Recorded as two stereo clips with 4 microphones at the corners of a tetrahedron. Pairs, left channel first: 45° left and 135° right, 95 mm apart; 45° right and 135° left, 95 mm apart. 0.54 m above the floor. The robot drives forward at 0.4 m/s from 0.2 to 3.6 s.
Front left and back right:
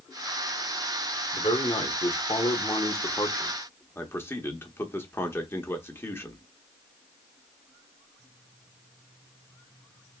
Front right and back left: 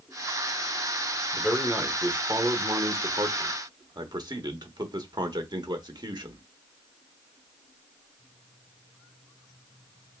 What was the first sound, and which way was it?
A man speaking, 50° left.